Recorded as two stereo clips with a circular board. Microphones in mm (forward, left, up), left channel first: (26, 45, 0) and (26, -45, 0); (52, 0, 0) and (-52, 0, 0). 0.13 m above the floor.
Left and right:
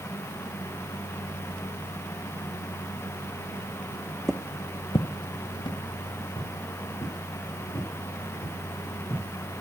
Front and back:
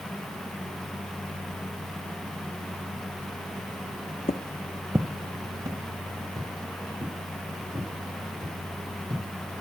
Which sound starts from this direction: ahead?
Footsteps, at 4.3 s.